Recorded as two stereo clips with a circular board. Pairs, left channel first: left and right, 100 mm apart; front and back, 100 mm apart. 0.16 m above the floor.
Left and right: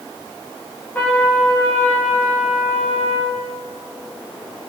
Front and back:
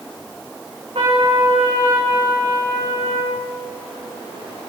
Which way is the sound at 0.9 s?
160° left.